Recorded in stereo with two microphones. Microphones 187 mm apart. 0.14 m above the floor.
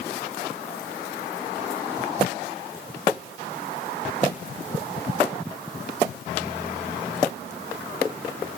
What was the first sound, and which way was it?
Only background noise.